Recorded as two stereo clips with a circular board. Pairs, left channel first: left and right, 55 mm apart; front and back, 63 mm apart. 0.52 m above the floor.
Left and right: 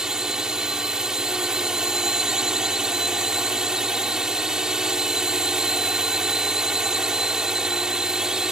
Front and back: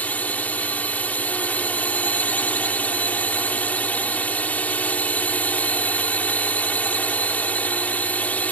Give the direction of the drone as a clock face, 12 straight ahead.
1 o'clock.